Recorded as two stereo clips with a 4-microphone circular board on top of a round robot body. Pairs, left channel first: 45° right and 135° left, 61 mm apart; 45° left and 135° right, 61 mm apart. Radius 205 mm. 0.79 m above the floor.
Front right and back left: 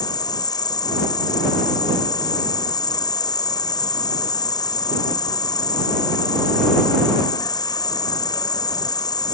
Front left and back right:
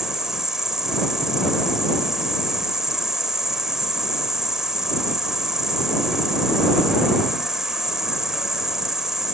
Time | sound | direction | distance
0.0 | an insect | 50° right | ?